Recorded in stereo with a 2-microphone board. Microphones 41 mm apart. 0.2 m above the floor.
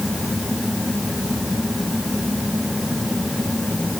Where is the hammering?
I don't hear hammering.